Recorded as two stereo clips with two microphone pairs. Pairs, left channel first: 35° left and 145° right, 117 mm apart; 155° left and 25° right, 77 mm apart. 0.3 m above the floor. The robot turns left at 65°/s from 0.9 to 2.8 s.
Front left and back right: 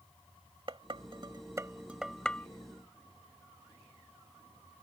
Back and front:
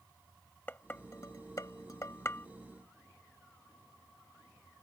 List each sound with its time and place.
0.7 s dishes clattering: 155° right; by 2.5 s 105° left